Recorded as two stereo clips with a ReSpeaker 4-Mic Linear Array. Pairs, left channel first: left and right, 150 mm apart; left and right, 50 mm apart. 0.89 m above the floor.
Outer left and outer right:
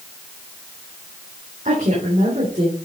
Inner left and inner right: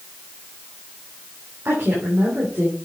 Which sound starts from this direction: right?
A woman speaking, at 1.6 s.